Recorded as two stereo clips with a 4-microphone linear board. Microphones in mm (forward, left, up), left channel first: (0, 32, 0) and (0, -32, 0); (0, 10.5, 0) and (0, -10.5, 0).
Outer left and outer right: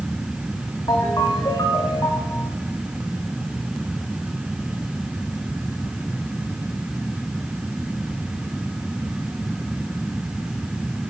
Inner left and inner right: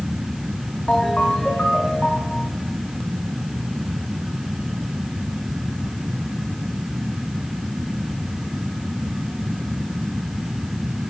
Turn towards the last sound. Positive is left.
turn(degrees=80)